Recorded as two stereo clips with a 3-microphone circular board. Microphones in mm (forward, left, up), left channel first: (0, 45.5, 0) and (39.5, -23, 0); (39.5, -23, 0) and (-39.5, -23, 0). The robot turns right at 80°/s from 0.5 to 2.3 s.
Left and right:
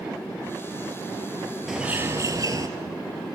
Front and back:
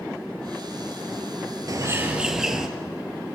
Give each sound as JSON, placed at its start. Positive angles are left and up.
{"t": 1.7, "sound": "a bird", "azimuth_deg": -145, "distance_m": 2.5}